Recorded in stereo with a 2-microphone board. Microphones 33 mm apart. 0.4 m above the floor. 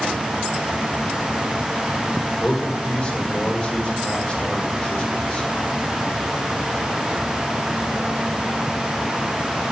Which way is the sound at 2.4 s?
35° left (ahead or behind).